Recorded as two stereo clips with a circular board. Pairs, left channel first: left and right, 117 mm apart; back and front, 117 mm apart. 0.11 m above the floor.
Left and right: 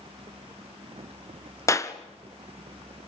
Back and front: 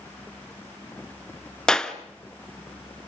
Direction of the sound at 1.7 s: 105° left.